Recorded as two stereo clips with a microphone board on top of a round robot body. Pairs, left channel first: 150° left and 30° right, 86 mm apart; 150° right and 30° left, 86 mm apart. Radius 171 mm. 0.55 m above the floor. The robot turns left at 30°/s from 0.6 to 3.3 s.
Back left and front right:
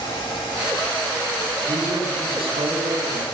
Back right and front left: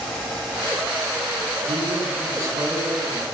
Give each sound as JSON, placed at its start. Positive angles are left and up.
{"t": 1.7, "sound": "a man speaking", "azimuth_deg": 0, "distance_m": 7.0}